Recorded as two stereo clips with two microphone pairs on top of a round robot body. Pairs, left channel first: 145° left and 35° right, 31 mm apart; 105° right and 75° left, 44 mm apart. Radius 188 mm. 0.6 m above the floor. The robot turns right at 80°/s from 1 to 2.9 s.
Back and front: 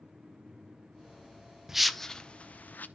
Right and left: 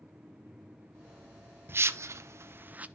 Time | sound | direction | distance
1.7 | a whoosh | 40° left | 0.8 m